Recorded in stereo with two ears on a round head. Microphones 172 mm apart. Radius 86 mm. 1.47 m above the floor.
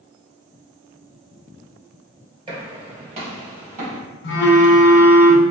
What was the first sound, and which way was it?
Footsteps, 30° right (ahead or behind).